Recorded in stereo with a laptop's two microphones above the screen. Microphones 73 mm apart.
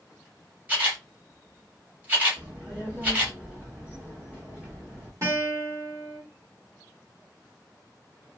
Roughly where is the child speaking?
Centre.